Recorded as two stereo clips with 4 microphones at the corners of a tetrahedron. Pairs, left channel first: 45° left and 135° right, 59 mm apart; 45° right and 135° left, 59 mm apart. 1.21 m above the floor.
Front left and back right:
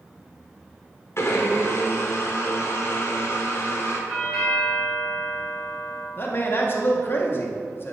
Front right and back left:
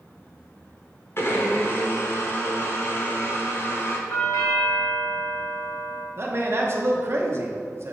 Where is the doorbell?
50° right, 1.7 m.